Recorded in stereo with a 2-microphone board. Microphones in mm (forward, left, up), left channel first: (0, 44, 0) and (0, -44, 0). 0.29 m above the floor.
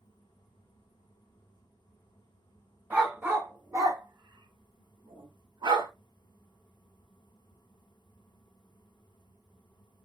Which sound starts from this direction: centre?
A dog barking, at 2.9 s.